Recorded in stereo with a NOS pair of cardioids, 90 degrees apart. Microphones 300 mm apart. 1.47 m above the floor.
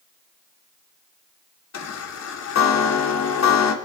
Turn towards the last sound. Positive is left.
turn(degrees=60)